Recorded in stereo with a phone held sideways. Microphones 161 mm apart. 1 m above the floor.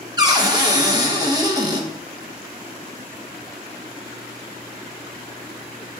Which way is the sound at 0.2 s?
25° right (ahead or behind).